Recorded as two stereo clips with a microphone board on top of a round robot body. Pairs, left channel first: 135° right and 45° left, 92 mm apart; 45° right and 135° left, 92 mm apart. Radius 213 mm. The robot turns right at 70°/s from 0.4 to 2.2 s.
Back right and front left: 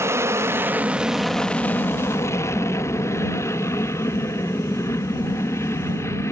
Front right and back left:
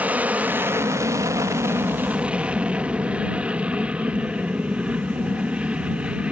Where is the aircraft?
75° left; by 6.3 s 160° right.